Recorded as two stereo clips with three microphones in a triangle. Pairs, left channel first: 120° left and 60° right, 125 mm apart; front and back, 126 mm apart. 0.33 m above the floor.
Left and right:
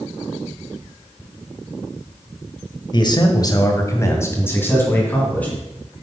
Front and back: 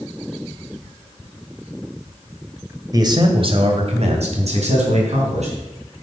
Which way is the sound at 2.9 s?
140° left.